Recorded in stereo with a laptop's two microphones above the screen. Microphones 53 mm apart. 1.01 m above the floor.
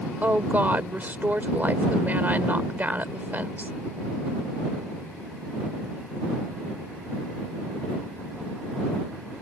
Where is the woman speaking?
35° right (ahead or behind).